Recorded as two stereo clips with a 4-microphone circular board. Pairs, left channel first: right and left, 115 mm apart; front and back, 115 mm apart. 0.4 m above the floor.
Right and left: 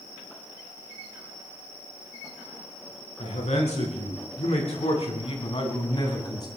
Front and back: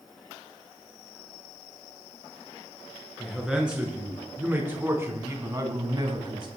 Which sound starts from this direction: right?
A man speaking, at 3.2 s.